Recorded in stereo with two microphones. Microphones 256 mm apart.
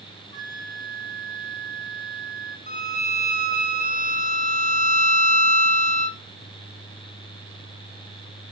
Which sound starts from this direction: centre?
A flute, at 0.3 s.